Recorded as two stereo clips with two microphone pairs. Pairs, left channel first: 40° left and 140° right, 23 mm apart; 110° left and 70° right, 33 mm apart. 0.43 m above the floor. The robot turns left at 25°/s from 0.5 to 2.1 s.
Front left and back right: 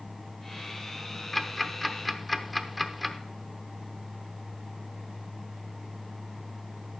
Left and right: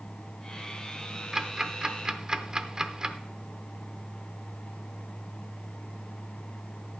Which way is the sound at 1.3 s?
30° right.